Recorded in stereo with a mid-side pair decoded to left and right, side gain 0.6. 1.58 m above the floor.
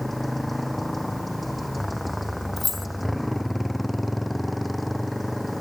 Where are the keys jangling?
15° left.